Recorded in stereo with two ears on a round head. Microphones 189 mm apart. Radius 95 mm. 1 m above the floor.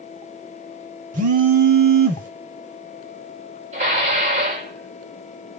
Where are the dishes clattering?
30° right (ahead or behind), 2.5 m.